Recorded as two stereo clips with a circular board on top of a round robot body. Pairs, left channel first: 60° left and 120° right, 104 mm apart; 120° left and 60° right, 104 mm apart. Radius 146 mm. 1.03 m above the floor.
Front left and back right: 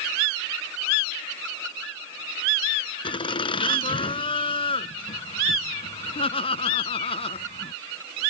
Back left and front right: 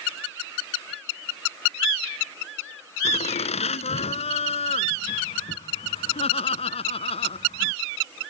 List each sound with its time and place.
3.0 s laughter: 100° left; by 7.8 s 90° left